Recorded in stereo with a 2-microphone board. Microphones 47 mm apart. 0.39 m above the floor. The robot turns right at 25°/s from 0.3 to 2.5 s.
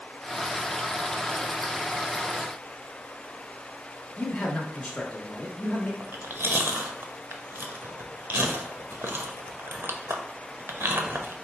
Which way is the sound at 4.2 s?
15° left (ahead or behind).